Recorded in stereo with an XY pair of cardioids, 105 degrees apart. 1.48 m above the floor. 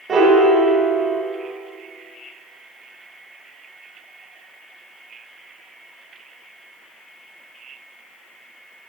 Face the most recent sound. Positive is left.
turn(degrees=-45)